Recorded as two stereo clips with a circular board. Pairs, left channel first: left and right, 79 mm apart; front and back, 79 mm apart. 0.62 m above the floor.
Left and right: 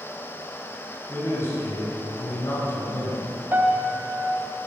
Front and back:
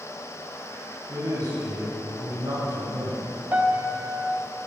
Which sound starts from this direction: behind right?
A piano, at 3.5 s.